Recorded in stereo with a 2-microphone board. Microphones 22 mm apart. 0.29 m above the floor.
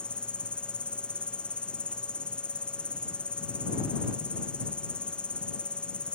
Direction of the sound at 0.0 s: 55° left (ahead or behind).